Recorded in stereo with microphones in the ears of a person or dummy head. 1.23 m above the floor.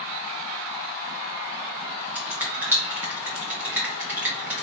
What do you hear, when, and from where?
2.1 s a finger snap: 10° right (ahead or behind), 1.2 m